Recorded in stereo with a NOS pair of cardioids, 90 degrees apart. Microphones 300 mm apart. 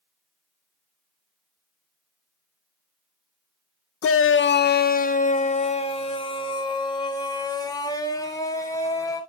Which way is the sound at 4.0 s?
50° left.